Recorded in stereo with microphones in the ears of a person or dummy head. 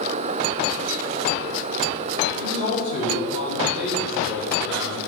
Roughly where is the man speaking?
Left.